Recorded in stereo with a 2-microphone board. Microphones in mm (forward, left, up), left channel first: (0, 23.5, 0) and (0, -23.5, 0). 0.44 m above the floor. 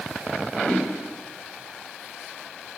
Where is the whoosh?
15° left (ahead or behind), 1.9 m.